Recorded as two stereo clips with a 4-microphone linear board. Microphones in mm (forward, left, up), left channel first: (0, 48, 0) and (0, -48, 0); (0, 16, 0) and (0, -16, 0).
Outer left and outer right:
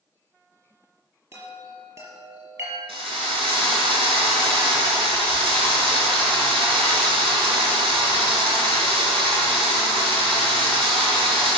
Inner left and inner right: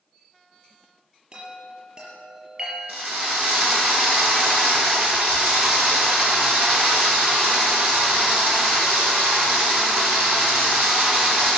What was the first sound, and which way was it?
A chime, 30° right (ahead or behind).